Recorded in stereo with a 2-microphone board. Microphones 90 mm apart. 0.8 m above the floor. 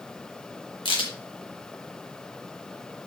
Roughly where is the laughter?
No laughter in this recording.